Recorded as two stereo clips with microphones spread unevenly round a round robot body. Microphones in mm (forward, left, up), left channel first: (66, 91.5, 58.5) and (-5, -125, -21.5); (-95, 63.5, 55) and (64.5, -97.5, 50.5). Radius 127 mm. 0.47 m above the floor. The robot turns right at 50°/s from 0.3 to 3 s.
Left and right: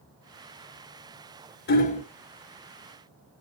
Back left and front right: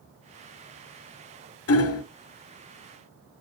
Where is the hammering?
130° left, 0.9 m; by 2.0 s 145° left, 0.9 m.